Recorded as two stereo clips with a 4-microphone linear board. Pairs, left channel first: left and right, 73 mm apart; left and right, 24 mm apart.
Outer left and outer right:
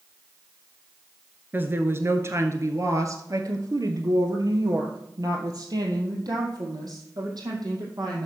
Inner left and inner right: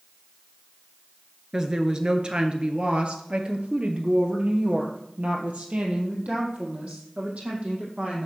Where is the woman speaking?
25° right (ahead or behind), 1.3 m; by 8.3 s 60° right (ahead or behind), 4 m.